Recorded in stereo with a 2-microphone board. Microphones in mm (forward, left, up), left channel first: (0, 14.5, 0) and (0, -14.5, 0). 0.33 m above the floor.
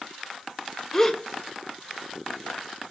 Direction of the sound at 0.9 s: 10° left (ahead or behind).